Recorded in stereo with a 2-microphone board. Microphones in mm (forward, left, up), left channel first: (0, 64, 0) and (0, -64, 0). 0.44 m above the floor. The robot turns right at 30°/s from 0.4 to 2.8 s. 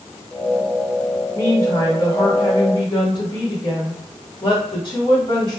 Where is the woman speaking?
35° left, 1.5 m; by 5.6 s 80° left, 1.5 m.